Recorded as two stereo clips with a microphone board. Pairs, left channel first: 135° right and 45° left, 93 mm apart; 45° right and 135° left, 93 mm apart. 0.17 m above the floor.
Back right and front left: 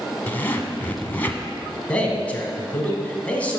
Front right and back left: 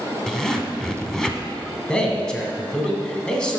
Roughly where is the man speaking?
Right.